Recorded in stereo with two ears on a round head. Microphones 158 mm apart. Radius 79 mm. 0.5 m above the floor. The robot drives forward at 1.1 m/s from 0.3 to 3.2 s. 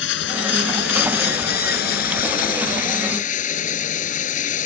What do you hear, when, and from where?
0.0 s running water: 80° left; by 4.7 s 45° left (ahead or behind)